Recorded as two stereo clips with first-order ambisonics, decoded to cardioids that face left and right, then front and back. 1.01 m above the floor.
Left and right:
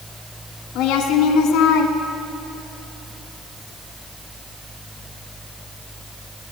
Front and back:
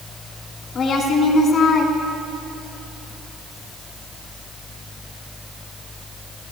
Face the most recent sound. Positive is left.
turn(degrees=55)